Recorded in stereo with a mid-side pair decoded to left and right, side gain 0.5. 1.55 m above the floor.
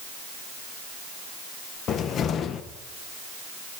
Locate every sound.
1.9 s a cupboard door: 60° left, 1.7 m